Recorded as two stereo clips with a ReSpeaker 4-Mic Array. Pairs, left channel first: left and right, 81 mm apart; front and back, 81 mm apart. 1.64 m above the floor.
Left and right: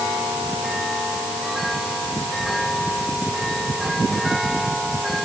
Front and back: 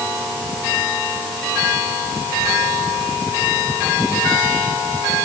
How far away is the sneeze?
No sneeze in this recording.